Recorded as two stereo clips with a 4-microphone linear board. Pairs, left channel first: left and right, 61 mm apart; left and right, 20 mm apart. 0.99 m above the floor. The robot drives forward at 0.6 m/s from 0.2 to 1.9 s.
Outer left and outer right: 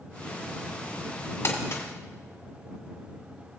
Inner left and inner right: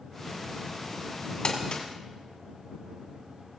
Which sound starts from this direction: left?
Crumpling, at 1.4 s.